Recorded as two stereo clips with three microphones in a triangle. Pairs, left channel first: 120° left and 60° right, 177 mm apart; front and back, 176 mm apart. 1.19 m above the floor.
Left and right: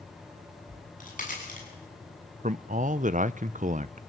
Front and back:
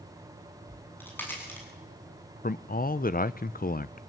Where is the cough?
I don't hear a cough.